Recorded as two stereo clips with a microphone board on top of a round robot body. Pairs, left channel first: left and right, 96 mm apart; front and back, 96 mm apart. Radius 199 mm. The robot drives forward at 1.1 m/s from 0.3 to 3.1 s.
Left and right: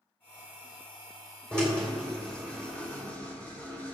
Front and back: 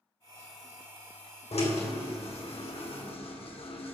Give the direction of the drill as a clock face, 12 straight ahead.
12 o'clock.